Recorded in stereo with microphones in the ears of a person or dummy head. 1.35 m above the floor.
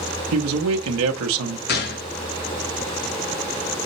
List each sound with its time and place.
0.3 s a man speaking: 80° right, 0.8 m
1.7 s a gunshot: 50° left (ahead or behind), 0.6 m